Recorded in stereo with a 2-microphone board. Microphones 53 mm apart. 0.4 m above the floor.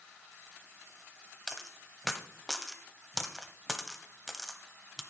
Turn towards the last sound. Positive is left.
turn(degrees=5)  # may be behind; listen again after turning